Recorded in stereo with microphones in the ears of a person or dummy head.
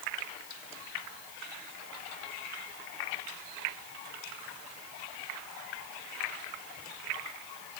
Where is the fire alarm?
No fire alarm in this recording.